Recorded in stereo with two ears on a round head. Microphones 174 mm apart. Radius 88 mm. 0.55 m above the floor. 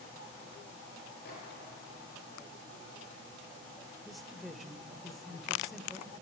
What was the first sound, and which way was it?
A microwave, 55° left (ahead or behind).